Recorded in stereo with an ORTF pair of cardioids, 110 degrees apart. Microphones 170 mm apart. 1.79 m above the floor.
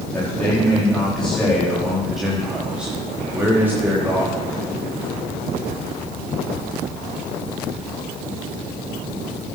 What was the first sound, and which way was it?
A man speaking, 10° left.